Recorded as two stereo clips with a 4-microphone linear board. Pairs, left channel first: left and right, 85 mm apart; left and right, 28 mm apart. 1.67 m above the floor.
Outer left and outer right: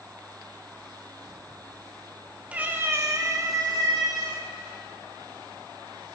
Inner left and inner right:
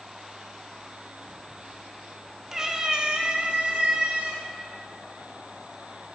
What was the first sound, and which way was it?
A cat meowing, 15° right (ahead or behind).